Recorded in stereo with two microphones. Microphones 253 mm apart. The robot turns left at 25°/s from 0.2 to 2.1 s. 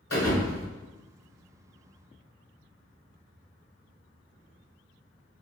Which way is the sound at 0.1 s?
65° left (ahead or behind).